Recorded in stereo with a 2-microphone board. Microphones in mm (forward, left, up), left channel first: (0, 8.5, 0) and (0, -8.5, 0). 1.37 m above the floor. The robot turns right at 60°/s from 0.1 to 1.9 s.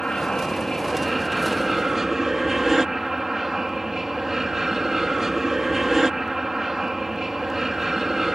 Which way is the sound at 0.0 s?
105° left.